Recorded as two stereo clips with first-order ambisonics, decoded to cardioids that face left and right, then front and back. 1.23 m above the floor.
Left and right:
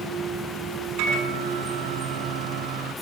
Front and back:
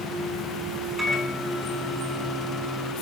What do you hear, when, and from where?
1.0 s a microwave: 95° right, 5.5 m